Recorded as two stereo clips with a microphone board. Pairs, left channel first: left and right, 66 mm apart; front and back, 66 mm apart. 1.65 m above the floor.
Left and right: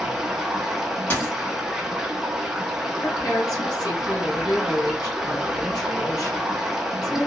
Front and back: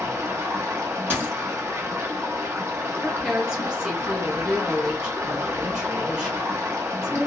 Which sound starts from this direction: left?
A woman speaking, at 3.0 s.